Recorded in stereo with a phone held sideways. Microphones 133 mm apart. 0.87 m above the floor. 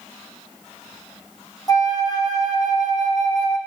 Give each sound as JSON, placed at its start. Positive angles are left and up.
{"t": 1.7, "sound": "a flute", "side_deg": 30, "distance_m": 0.6}